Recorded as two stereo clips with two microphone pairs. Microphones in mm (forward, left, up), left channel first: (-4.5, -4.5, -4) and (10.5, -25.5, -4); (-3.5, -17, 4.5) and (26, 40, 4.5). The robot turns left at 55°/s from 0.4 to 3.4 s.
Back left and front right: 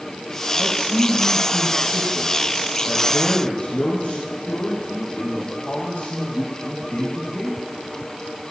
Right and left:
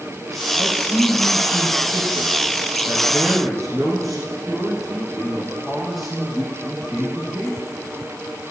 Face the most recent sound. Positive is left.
turn(degrees=160)